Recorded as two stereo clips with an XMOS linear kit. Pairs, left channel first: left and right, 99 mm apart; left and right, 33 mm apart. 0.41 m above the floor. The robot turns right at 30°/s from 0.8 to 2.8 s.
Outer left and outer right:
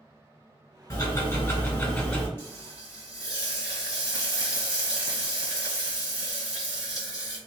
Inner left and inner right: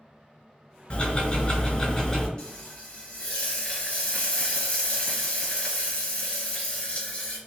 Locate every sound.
0.9 s ticking: 115° left, 1.7 m; by 2.3 s 160° left, 1.7 m
2.4 s frying: 25° left (ahead or behind), 1.3 m; by 7.4 s 35° left (ahead or behind), 1.3 m